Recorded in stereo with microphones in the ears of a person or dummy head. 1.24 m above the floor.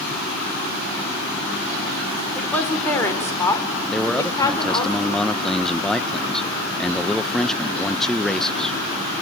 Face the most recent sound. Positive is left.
turn(degrees=0)  # may be behind; listen again after turning